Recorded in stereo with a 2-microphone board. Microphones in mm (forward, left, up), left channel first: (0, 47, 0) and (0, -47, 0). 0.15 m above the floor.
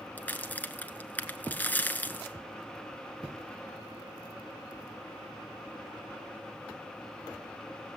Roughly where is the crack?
Centre.